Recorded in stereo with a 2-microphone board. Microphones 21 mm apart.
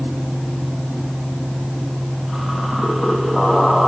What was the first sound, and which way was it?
Only background noise.